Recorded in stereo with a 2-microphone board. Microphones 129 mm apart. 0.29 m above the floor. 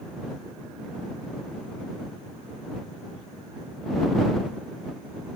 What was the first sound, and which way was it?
Only background noise.